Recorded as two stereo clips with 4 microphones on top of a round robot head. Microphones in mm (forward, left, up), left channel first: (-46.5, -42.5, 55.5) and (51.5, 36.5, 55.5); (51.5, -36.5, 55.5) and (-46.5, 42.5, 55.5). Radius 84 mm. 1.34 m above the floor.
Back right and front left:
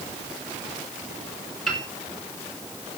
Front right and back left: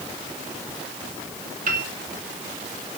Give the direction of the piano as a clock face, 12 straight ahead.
8 o'clock.